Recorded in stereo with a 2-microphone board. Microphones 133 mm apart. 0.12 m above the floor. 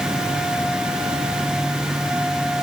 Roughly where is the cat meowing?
I don't hear a cat meowing.